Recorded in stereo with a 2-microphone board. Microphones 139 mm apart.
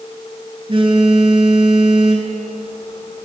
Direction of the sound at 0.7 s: 40° right (ahead or behind).